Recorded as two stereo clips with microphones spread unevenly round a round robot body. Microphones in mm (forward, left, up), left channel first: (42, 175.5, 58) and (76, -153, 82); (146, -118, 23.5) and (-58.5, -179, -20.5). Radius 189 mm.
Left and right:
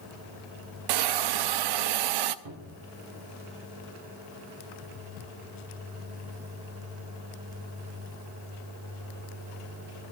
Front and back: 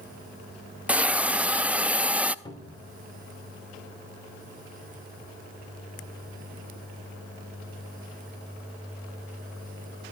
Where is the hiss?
80° right, 0.7 m.